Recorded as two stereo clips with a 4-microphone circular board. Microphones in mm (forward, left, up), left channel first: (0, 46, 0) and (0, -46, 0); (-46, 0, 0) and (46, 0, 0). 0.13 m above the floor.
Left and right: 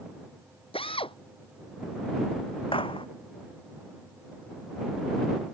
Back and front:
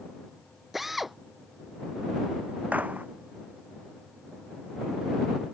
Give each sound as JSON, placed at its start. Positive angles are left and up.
{"t": 0.7, "sound": "a drill", "azimuth_deg": 85}
{"t": 2.7, "sound": "a gunshot", "azimuth_deg": 75}